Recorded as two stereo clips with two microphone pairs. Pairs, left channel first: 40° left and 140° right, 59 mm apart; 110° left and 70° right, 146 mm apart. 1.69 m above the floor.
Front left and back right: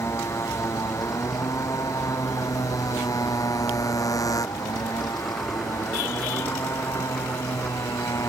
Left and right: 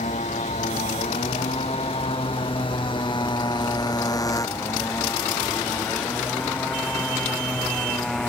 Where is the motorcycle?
75° left; by 8.3 s 25° left.